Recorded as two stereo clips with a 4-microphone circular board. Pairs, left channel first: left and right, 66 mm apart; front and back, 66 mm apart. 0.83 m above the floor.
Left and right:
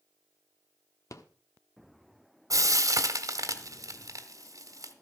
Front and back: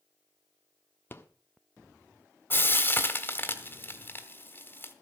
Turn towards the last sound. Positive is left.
turn(degrees=-55)